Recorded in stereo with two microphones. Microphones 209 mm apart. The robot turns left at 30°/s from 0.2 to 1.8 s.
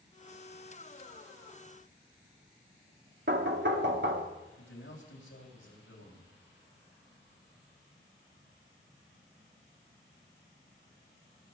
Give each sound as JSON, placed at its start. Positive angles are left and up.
{"t": 3.3, "sound": "knocking", "side_deg": -60, "distance_m": 1.3}
{"t": 4.6, "sound": "a man speaking", "side_deg": 85, "distance_m": 4.5}